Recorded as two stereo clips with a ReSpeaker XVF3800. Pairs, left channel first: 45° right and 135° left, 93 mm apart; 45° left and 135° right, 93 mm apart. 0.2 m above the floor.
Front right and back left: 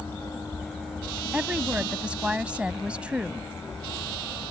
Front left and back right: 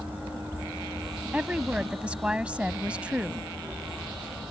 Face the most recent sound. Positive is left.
turn(degrees=180)